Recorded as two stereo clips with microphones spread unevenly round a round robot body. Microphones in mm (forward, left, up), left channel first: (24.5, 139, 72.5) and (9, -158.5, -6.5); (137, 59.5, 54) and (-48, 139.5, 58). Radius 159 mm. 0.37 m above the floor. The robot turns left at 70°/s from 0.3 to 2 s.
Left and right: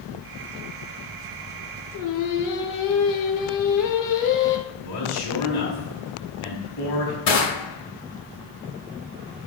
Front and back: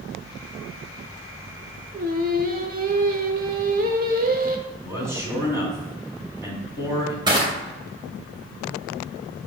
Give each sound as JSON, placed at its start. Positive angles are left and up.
{"t": 1.9, "sound": "singing", "azimuth_deg": 125, "distance_m": 1.0}
{"t": 4.7, "sound": "a man speaking", "azimuth_deg": 80, "distance_m": 3.0}
{"t": 7.3, "sound": "crushing", "azimuth_deg": 90, "distance_m": 2.5}